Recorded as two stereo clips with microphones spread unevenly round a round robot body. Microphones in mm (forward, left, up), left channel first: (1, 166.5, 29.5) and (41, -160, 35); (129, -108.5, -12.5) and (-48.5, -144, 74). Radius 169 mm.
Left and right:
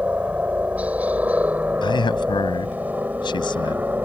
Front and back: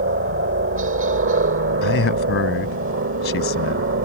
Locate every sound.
0.0 s a helicopter: 170° right
1.8 s a man speaking: 20° left